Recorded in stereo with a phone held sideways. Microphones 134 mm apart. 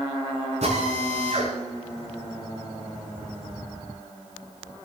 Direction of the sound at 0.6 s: 65° right (ahead or behind).